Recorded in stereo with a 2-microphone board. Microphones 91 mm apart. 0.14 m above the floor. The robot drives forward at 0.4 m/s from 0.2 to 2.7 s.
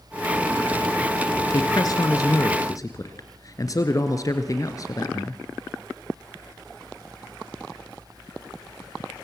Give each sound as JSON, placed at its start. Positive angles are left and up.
{"t": 1.5, "sound": "a woman speaking", "side_deg": 45, "distance_m": 1.7}